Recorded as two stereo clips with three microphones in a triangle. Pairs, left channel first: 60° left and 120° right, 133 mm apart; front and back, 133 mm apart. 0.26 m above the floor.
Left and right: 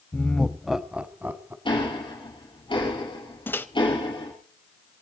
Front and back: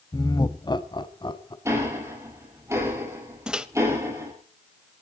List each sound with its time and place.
0.1 s laughter: straight ahead, 1.0 m; by 1.6 s 45° right, 1.7 m
1.6 s ticking: 110° left, 6 m
3.5 s a microwave: 105° left, 0.9 m